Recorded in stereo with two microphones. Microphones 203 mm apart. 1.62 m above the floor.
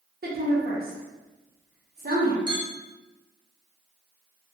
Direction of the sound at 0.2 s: 45° right (ahead or behind).